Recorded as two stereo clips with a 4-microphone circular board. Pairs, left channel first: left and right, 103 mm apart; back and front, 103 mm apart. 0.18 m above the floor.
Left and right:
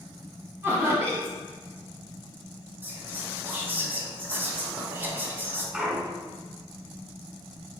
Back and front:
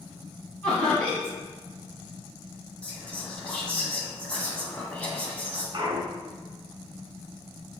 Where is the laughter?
115° right, 1.4 m.